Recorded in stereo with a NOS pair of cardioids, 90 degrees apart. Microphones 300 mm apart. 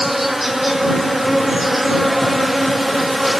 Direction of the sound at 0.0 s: Straight ahead.